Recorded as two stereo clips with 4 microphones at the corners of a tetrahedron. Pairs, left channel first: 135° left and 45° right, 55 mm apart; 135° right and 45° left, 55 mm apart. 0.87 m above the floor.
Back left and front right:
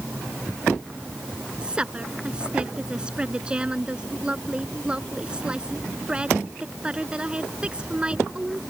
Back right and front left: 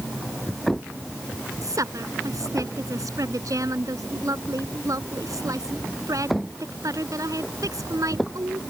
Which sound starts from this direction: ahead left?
A woman speaking, at 1.6 s.